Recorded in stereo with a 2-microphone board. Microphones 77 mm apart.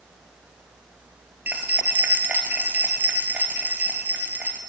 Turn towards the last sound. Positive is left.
turn(degrees=-20)  # may be behind; listen again after turning